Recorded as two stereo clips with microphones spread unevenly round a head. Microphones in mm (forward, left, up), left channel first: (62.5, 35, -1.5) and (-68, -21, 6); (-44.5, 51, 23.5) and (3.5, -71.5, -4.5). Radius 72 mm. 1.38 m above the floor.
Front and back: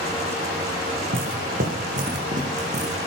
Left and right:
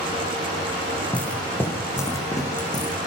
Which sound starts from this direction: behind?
Footsteps, at 0.9 s.